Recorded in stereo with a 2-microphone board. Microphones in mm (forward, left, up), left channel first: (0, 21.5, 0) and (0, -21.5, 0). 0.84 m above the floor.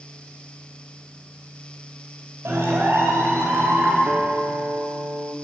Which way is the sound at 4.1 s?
50° right (ahead or behind).